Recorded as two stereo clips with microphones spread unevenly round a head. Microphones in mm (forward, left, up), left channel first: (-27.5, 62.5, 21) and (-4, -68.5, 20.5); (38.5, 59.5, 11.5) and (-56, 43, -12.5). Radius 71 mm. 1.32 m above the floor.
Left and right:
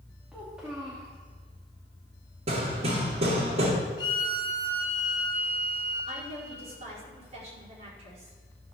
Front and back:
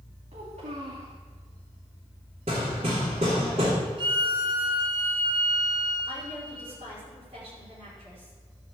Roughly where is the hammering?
Behind right.